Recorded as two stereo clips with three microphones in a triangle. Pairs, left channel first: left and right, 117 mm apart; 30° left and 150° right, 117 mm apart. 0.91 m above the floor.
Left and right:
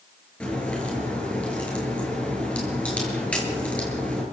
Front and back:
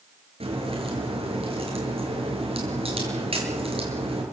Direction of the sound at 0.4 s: 170° left.